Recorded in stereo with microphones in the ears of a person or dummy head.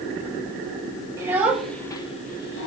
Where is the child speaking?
20° right (ahead or behind), 1.5 m; by 2.7 s 60° left (ahead or behind), 1.1 m.